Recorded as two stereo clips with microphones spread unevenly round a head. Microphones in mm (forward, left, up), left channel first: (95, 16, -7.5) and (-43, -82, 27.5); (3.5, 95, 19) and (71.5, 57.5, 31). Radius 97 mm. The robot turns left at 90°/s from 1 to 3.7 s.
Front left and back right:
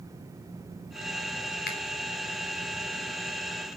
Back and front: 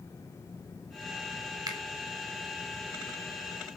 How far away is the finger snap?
About 3.5 m.